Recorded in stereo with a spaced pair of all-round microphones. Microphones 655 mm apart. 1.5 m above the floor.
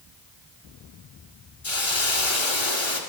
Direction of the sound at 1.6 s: 45° left (ahead or behind).